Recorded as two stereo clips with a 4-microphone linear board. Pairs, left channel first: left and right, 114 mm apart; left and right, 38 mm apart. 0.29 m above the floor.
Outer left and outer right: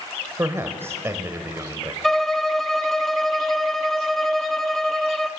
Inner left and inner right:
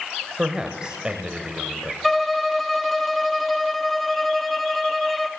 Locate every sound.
0.4 s a man speaking: 20° right (ahead or behind), 1.4 m
2.0 s a violin: centre (ahead or behind), 0.6 m